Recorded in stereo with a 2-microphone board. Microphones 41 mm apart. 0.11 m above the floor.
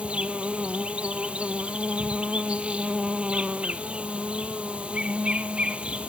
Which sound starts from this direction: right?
An insect, at 0.0 s.